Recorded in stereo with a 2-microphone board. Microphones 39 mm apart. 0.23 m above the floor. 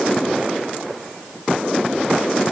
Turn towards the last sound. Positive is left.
No sound to turn to.